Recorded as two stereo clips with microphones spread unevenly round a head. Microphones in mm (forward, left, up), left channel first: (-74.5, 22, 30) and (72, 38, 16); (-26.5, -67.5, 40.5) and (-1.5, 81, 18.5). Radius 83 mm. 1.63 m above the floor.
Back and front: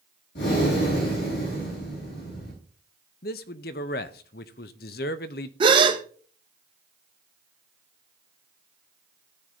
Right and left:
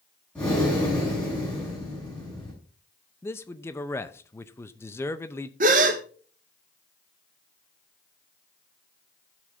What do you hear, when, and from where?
0.3 s breathing: straight behind, 6.5 m
3.2 s a man speaking: 170° right, 0.7 m
5.6 s a gasp: 55° left, 1.0 m